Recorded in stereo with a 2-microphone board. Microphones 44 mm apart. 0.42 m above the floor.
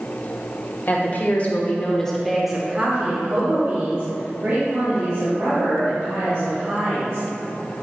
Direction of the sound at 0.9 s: 45° left (ahead or behind).